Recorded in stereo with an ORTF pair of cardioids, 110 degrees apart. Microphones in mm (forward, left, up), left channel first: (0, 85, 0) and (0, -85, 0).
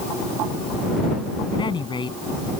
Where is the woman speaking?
30° left.